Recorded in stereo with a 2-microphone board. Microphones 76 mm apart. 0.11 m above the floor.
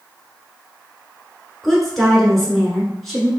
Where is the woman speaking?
Centre (ahead or behind), 1.1 m.